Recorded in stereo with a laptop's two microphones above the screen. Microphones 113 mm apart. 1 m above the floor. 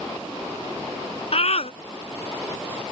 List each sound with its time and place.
1.3 s a scream: 65° left (ahead or behind)